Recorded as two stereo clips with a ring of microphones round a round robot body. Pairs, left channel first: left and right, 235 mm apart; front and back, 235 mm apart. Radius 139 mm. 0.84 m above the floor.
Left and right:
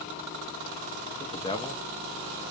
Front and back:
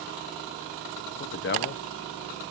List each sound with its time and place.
1.2 s a man speaking: 25° left, 0.6 m